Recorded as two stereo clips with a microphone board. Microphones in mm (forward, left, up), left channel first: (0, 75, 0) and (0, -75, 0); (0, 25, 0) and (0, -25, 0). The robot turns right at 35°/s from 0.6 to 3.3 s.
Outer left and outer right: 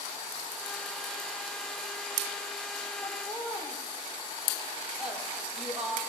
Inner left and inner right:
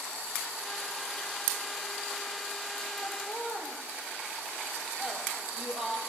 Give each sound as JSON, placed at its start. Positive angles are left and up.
{"t": 3.0, "sound": "laughter", "side_deg": 5, "distance_m": 7.5}